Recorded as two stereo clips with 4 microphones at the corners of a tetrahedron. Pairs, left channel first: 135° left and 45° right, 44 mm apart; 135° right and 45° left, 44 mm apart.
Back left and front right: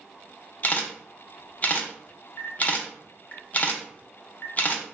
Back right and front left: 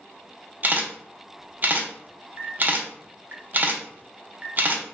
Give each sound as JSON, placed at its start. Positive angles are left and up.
{"t": 0.6, "sound": "a camera shutter", "azimuth_deg": 85, "distance_m": 0.6}